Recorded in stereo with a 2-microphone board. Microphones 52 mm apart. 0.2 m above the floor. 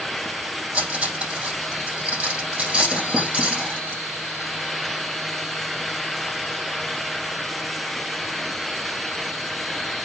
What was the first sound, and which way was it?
Cutlery clinking, 25° right (ahead or behind).